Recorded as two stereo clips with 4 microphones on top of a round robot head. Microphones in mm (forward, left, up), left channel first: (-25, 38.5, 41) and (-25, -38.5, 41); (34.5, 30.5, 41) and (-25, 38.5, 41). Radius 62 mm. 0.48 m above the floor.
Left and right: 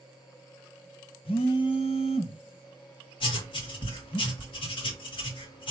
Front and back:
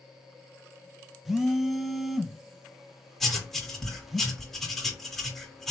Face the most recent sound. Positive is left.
turn(degrees=80)